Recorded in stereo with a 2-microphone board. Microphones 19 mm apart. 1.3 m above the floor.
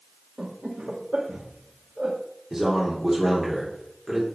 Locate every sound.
0.4 s laughter: 85° right, 1.3 m
2.5 s a man speaking: 30° right (ahead or behind), 3.5 m